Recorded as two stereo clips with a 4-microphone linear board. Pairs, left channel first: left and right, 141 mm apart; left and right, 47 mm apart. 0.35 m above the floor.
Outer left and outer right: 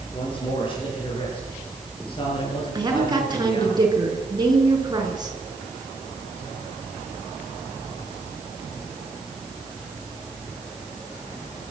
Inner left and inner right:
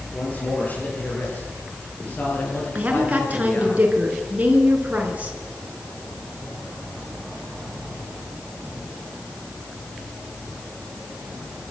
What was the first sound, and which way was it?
A man speaking, 40° left (ahead or behind).